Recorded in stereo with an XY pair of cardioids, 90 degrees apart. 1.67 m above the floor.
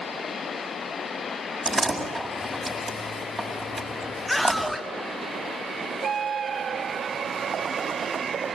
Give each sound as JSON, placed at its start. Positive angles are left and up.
{"t": 1.6, "sound": "a door slam", "azimuth_deg": -20, "distance_m": 7.5}
{"t": 4.3, "sound": "a scream", "azimuth_deg": 5, "distance_m": 2.5}